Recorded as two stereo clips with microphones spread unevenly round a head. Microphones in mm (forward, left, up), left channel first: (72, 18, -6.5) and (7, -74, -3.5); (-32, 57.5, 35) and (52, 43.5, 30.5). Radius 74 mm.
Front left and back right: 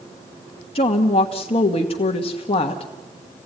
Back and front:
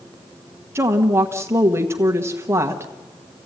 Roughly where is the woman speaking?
Ahead left.